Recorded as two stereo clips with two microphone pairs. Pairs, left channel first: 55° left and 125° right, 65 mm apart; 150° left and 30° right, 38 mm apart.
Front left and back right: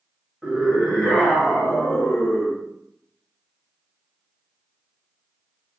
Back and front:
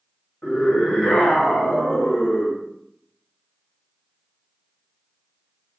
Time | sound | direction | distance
0.4 | a scream | 150° left | 1.4 m